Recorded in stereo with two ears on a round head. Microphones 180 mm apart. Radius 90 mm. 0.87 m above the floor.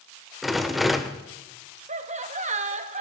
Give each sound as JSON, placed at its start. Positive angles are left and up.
{"t": 0.4, "sound": "a rattle", "side_deg": 0, "distance_m": 0.9}
{"t": 1.9, "sound": "laughter", "side_deg": -35, "distance_m": 1.3}